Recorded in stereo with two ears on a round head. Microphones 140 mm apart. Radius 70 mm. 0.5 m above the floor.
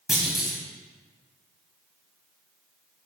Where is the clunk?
5° right (ahead or behind), 2.5 m.